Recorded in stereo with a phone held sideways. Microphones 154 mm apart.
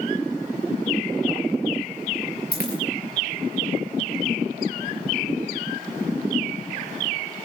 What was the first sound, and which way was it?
A dropped coin, 75° left (ahead or behind).